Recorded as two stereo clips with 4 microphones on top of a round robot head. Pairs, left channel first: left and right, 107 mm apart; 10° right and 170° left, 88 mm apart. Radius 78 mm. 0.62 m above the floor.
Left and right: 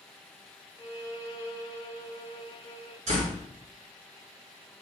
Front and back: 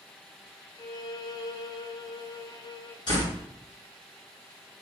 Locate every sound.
0.8 s a violin: 20° left, 0.9 m
3.1 s a door slam: 55° right, 2.5 m